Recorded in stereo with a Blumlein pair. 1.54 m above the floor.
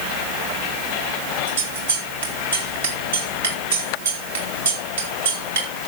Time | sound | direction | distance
1.5 | scissors | 65° right | 3 m